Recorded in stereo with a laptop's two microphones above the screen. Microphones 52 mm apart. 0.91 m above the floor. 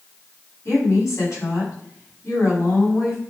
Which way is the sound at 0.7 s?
65° left (ahead or behind).